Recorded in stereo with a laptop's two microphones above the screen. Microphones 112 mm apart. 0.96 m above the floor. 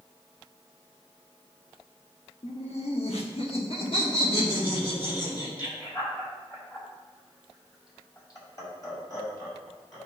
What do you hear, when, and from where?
2.4 s laughter: 75° left (ahead or behind), 1.3 m; by 10.1 s 30° left (ahead or behind), 5.5 m